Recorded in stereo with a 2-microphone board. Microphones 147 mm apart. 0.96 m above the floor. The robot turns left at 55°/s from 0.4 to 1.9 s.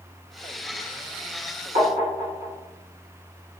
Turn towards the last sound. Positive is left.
turn(degrees=-70)  # may be behind; listen again after turning